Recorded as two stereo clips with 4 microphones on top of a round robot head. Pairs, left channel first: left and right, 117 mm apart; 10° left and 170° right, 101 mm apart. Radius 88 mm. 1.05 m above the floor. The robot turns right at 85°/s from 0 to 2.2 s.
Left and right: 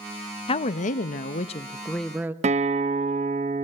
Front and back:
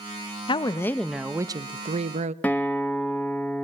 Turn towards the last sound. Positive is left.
turn(degrees=-70)